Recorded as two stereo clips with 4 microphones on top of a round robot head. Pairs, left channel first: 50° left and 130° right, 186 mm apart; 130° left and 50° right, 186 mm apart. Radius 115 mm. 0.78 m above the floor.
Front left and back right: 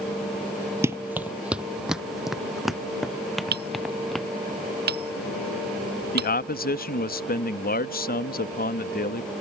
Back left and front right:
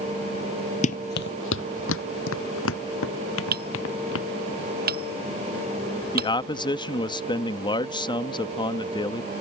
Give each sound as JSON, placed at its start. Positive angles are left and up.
{"t": 0.8, "sound": "running footsteps", "azimuth_deg": 160}
{"t": 3.5, "sound": "hammering", "azimuth_deg": -90}
{"t": 6.1, "sound": "a man speaking", "azimuth_deg": 70}